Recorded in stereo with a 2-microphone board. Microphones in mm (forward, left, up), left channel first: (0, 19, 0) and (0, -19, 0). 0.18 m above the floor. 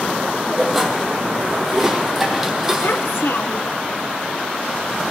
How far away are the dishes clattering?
About 4.5 m.